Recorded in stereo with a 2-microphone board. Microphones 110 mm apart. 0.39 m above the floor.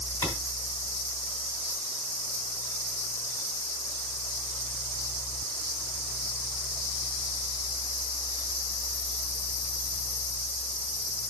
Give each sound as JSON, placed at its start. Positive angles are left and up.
{"t": 0.2, "sound": "a clap", "side_deg": 20, "distance_m": 3.0}